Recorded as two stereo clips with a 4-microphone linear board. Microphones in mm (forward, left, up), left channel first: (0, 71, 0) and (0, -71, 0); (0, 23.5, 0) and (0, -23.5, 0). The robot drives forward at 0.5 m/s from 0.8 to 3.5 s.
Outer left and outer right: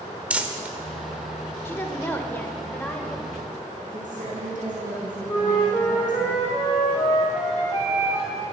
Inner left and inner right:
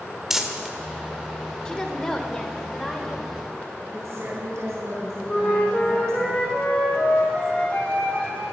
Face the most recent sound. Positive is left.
turn(degrees=25)  # may be behind; listen again after turning